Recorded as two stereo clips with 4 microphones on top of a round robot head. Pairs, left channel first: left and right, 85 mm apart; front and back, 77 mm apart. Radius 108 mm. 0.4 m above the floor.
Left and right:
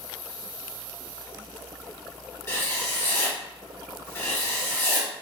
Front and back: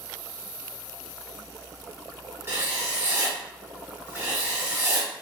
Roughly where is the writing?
Behind left.